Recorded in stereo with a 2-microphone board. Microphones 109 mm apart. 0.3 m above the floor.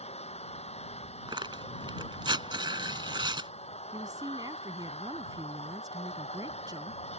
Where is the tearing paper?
50° right (ahead or behind).